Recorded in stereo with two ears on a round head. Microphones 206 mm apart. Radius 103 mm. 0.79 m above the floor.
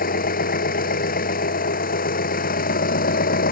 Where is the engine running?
40° left (ahead or behind).